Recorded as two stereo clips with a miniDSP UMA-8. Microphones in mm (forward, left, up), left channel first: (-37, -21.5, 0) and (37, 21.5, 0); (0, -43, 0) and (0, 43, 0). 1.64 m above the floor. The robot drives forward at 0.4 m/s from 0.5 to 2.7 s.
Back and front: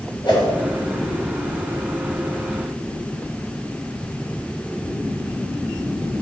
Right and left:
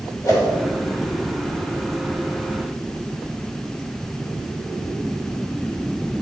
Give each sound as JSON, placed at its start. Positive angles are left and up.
{"t": 0.2, "sound": "a whoosh", "azimuth_deg": -130, "distance_m": 2.0}